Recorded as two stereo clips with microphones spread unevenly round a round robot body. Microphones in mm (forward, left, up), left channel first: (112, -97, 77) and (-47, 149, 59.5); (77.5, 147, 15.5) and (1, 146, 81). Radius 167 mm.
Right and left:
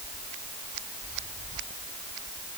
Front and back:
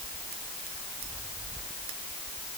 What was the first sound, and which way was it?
Only background noise.